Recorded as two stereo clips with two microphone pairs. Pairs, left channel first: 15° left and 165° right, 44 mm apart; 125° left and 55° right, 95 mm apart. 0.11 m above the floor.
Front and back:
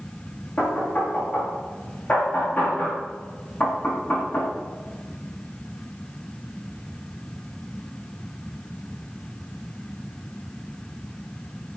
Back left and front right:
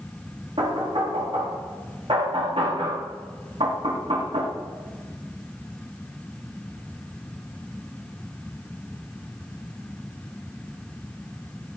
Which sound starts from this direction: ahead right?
Knocking, at 0.6 s.